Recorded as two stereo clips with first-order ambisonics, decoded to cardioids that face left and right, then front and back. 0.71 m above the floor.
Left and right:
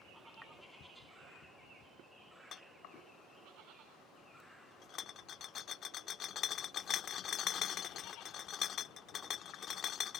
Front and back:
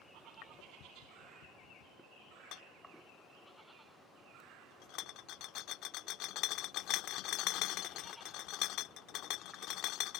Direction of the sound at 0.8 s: 35° left.